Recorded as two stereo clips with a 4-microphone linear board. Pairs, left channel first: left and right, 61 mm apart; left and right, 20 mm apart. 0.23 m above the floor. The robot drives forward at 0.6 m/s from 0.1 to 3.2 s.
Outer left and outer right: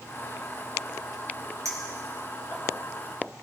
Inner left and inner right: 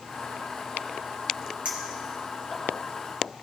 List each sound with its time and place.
1.6 s a clink: 60° right (ahead or behind), 3 m; by 2.6 s 55° right (ahead or behind), 3 m